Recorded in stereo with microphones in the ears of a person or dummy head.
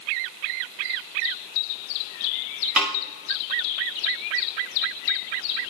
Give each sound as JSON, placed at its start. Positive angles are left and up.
{"t": 2.8, "sound": "a snare drum", "side_deg": 0, "distance_m": 1.4}